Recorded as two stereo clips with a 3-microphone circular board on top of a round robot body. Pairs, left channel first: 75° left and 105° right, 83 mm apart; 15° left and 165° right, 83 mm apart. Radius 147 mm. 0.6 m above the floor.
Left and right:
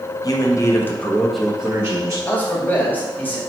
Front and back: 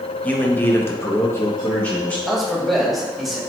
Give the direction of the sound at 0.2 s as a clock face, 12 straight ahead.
9 o'clock.